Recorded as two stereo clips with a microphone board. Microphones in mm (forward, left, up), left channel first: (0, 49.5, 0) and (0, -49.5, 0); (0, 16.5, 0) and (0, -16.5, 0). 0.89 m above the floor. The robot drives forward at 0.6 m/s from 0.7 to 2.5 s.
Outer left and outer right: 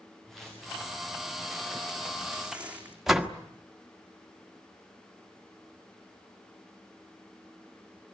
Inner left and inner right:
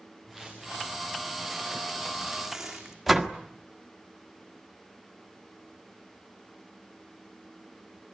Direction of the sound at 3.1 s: 5° right (ahead or behind).